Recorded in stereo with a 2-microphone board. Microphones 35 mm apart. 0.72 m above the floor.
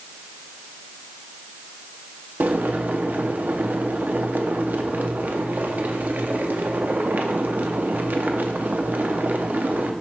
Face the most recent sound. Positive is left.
turn(degrees=-60)  # may be behind; listen again after turning